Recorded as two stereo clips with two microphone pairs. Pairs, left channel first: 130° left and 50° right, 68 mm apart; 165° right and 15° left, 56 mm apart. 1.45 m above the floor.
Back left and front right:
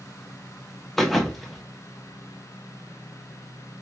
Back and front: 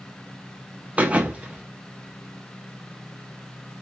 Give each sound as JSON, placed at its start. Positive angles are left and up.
{"t": 1.0, "sound": "a thud", "azimuth_deg": 50, "distance_m": 0.7}